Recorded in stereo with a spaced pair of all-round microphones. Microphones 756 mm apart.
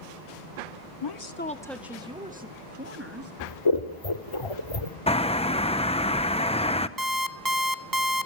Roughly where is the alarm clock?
Right.